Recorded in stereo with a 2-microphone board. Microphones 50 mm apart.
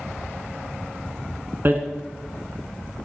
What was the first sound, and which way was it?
Hammering, 40° right (ahead or behind).